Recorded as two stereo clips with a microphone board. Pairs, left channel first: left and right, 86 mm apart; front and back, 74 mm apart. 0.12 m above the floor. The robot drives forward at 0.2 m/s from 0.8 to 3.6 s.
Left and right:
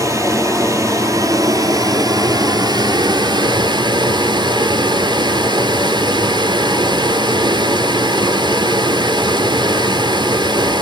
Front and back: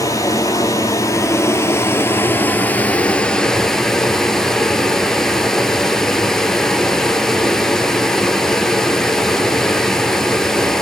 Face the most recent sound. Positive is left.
turn(degrees=-85)